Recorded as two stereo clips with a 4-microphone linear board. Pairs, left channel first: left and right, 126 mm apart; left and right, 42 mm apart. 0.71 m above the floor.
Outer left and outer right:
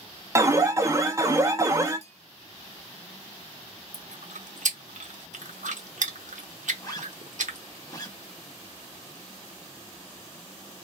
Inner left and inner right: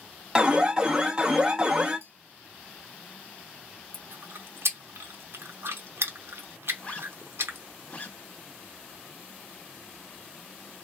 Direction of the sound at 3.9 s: 85° right.